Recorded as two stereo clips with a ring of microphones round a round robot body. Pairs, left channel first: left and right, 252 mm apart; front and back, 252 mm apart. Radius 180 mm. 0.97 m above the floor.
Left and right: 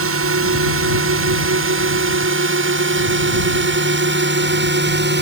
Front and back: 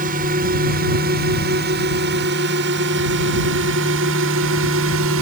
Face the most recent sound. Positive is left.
turn(degrees=-135)